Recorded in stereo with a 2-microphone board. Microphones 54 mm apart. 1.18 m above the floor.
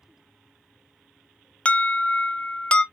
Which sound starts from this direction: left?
An alarm, at 1.6 s.